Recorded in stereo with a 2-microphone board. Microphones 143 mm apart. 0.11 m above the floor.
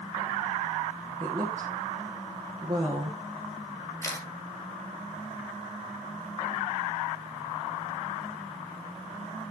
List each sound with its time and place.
1.2 s a woman speaking: 50° right (ahead or behind), 2.5 m
4.0 s a camera shutter: 20° left (ahead or behind), 2.5 m